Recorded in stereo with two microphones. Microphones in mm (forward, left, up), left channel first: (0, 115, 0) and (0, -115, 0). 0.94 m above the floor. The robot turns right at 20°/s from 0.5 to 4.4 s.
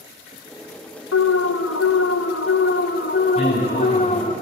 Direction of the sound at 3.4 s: 25° left (ahead or behind).